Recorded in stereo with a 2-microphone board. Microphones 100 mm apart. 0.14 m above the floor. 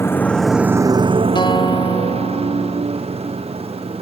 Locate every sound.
0.0 s a motorcycle: 25° left (ahead or behind); by 4.0 s 75° right (ahead or behind)
1.4 s a guitar: 50° left (ahead or behind)